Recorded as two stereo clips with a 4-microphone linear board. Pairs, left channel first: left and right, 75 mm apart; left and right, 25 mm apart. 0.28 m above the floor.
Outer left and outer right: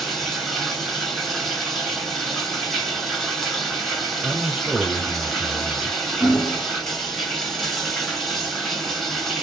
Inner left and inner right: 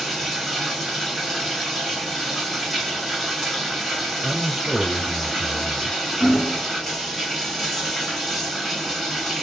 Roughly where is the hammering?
Left.